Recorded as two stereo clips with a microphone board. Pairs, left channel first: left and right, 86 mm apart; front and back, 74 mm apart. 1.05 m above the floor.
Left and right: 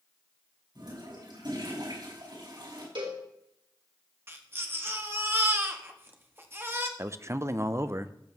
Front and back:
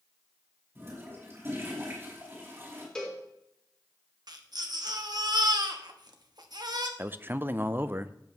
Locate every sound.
0.8 s a toilet flushing: 120° right, 5 m
3.0 s a cowbell: 80° right, 3.5 m
4.3 s a baby crying: 155° right, 1.1 m
7.0 s a man speaking: 130° right, 0.6 m